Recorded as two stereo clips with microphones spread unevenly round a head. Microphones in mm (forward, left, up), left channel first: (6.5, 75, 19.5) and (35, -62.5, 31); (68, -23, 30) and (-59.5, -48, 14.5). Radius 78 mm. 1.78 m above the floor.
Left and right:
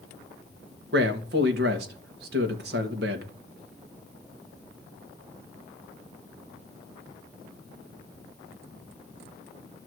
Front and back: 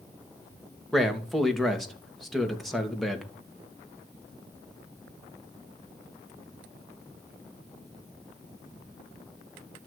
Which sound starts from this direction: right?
A man speaking, at 0.9 s.